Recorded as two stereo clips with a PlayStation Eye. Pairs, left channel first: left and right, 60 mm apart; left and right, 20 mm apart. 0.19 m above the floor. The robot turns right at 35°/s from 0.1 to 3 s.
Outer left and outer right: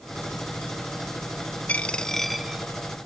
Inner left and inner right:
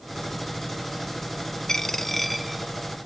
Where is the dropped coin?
155° left, 0.6 m; by 2.6 s 170° right, 0.6 m.